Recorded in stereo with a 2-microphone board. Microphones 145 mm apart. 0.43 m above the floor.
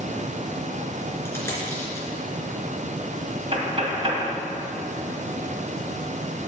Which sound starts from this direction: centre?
A dropped coin, at 1.2 s.